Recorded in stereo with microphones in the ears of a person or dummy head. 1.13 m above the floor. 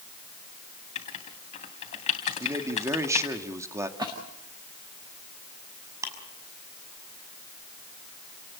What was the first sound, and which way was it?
Writing, 40° left (ahead or behind).